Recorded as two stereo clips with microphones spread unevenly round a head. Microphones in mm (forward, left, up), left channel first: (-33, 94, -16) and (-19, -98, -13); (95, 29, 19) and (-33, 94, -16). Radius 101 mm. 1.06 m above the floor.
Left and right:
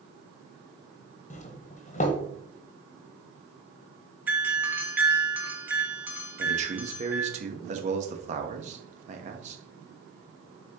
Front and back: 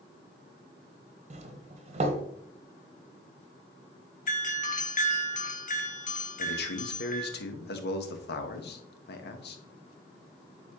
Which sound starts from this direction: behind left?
A doorbell, at 1.3 s.